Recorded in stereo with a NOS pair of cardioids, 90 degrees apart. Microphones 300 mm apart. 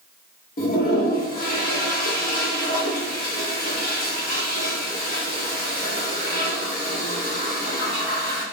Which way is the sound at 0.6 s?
30° left.